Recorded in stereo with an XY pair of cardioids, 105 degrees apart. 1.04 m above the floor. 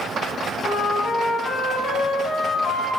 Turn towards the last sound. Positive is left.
turn(degrees=50)